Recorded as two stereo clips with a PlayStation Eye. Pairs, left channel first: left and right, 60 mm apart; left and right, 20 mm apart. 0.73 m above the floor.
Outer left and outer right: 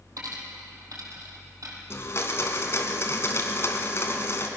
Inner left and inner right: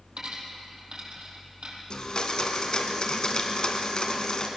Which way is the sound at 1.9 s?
45° left (ahead or behind).